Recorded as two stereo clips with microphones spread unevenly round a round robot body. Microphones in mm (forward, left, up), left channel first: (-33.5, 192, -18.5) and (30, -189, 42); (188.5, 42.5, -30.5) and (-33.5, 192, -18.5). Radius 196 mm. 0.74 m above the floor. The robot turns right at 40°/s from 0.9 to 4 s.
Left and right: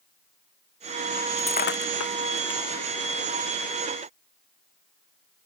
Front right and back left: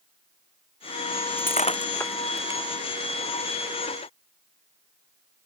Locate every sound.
1.4 s breaking glass: 20° left; by 2.6 s 70° left